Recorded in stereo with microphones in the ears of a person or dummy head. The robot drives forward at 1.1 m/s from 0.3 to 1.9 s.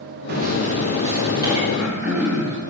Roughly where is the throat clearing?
Centre.